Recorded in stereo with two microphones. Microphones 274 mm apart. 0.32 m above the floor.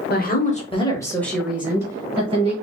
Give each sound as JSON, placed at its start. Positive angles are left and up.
{"t": 0.1, "sound": "a woman speaking", "side_deg": 35, "distance_m": 1.0}